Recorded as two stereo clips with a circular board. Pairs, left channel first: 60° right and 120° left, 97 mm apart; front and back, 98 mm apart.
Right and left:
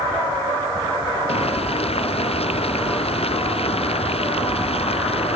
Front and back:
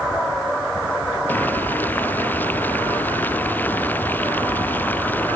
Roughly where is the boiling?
Right.